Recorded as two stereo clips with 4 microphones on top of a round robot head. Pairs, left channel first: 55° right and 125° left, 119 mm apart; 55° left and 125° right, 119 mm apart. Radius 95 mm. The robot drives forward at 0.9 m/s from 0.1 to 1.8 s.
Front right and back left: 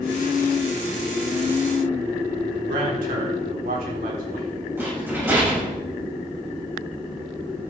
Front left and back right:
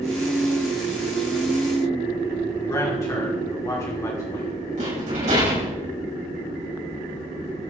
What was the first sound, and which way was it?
A man speaking, 120° left.